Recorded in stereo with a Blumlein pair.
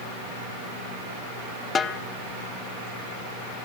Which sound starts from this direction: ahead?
A snare drum, at 1.8 s.